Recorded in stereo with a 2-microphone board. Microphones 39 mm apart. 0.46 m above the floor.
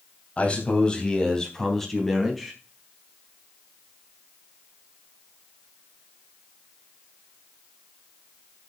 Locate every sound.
0.4 s a man speaking: 35° left (ahead or behind), 3.5 m; by 2.5 s centre (ahead or behind), 4.5 m